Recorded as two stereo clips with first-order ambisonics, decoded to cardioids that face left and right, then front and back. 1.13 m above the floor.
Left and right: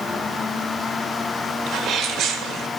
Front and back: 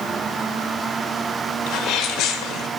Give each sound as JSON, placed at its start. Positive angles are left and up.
{"t": 1.7, "sound": "a sneeze", "azimuth_deg": -40, "distance_m": 1.3}